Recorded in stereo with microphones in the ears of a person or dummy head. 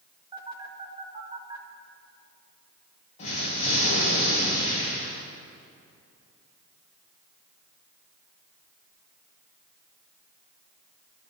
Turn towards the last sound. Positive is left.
turn(degrees=40)  # may be behind; listen again after turning